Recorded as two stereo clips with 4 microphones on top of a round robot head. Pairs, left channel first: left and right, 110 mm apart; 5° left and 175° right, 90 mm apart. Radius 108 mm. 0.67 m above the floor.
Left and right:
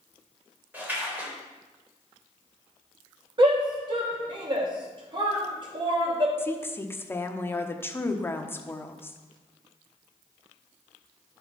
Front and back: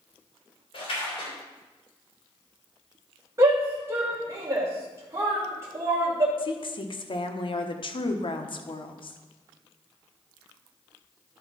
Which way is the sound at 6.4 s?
20° left.